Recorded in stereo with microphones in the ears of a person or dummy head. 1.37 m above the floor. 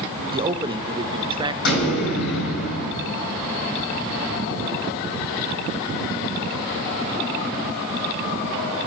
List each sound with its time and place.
0.3 s a man speaking: 20° right (ahead or behind), 0.9 m
1.6 s an explosion: 80° left, 6.5 m